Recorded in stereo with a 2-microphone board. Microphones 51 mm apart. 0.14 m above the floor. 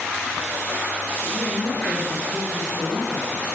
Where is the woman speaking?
5° right (ahead or behind), 5.5 m.